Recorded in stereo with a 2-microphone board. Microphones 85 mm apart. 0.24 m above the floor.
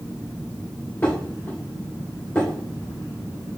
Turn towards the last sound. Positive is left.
turn(degrees=25)  # may be behind; listen again after turning